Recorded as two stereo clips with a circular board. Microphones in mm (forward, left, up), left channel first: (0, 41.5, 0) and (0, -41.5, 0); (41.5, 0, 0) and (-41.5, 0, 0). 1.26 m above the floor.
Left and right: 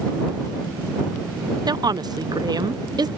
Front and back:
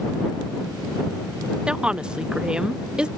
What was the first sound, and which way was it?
A woman speaking, 105° right.